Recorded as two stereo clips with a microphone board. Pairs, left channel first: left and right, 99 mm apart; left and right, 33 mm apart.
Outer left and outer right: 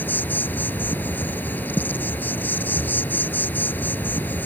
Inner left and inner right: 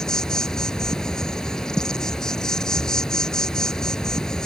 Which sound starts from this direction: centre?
An insect, at 0.0 s.